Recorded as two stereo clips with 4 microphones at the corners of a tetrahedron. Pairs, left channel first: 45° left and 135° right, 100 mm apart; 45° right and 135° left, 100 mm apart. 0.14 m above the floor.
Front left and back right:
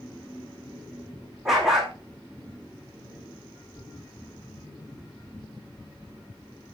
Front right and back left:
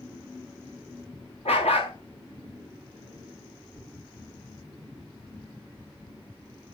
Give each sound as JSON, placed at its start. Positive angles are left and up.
{"t": 1.4, "sound": "a dog barking", "azimuth_deg": -50, "distance_m": 3.0}